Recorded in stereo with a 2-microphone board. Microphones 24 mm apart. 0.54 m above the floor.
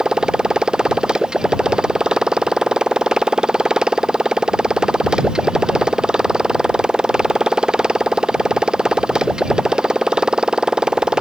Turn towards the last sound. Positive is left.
turn(degrees=-30)  # may be behind; listen again after turning